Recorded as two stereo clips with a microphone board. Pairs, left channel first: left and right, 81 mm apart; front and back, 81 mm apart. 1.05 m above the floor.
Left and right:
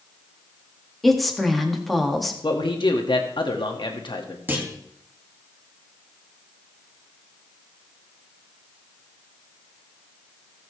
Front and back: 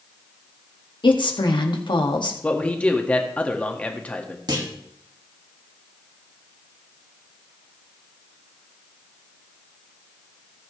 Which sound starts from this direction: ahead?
A woman speaking, at 1.0 s.